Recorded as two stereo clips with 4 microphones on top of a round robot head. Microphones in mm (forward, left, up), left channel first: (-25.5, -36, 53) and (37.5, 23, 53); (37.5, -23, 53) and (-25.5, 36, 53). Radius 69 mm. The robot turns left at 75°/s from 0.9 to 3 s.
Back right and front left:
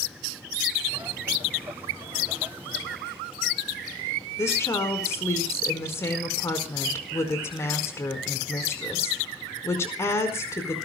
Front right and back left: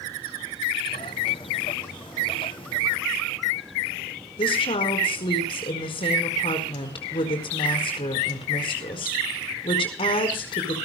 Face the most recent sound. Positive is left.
turn(degrees=-75)